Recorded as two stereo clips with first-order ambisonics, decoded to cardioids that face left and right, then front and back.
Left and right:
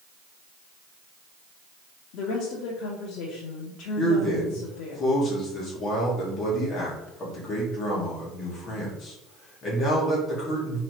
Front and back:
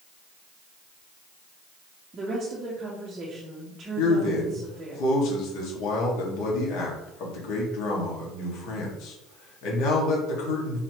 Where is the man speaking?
25° left, 1.6 m.